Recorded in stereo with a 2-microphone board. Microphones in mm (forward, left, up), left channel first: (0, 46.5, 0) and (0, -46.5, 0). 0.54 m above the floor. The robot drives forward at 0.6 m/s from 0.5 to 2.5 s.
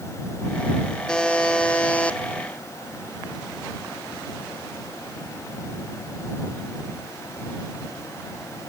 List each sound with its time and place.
1.1 s a buzzer: 10° left (ahead or behind), 1.4 m; by 2.2 s 15° left (ahead or behind), 1.0 m